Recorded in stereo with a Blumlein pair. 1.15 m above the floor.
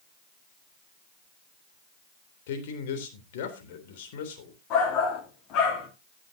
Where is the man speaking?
55° left, 3.5 m.